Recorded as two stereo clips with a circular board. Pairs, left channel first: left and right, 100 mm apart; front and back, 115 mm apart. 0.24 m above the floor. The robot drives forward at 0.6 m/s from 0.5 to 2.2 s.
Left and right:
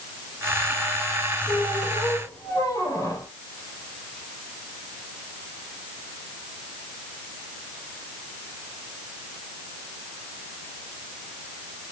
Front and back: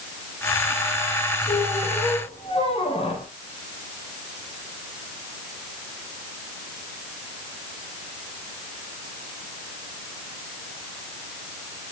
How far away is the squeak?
About 3.5 m.